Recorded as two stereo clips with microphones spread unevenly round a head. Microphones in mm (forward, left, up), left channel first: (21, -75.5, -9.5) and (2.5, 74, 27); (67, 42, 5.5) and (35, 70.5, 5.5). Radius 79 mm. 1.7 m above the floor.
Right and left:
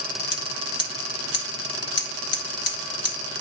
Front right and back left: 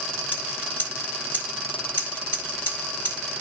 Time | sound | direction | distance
0.3 | scissors | 95° right | 1.3 m